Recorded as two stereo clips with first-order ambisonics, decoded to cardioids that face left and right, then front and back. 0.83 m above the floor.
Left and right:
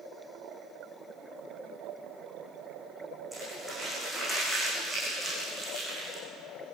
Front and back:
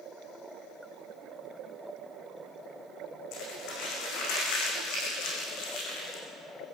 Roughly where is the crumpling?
Ahead.